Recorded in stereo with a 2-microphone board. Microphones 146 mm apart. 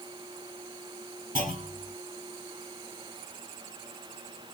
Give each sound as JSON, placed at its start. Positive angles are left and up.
{"t": 1.4, "sound": "a clunk", "side_deg": -75, "distance_m": 2.5}